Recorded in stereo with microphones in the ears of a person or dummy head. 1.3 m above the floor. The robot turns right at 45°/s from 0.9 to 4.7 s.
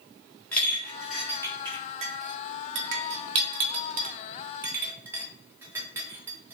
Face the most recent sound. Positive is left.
turn(degrees=-15)  # may be behind; listen again after turning